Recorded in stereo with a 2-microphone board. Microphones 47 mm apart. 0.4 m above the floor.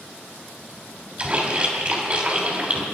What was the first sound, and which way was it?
A splash, 30° right (ahead or behind).